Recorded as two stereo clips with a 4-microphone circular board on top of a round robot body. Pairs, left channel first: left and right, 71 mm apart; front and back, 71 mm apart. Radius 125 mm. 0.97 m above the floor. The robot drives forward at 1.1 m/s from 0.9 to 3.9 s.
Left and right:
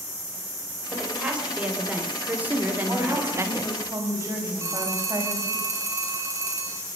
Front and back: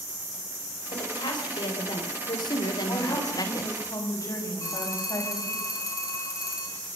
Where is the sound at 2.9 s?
30° right, 6 m; by 5.6 s 35° right, 5 m.